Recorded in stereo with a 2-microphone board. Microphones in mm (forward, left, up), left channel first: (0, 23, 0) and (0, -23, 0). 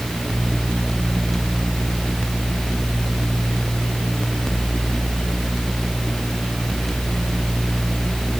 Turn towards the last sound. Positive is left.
No sound to turn to.